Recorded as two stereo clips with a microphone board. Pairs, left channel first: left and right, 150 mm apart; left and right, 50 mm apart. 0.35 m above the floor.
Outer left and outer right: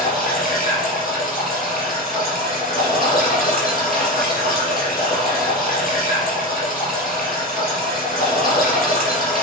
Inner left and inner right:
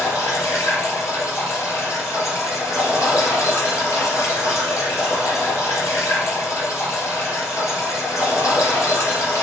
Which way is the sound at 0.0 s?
75° left (ahead or behind).